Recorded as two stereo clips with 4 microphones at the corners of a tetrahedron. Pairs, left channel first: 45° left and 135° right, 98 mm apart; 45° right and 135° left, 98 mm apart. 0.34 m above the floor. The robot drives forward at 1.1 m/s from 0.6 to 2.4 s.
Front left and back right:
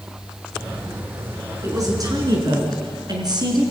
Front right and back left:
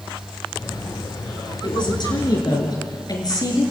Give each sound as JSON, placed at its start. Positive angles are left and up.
{"t": 1.6, "sound": "a woman speaking", "azimuth_deg": -80, "distance_m": 5.5}